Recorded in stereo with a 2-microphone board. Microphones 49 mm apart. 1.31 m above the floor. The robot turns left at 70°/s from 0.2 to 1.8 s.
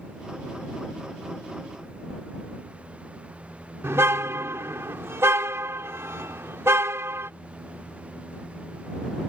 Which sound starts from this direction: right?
A car horn, at 3.8 s.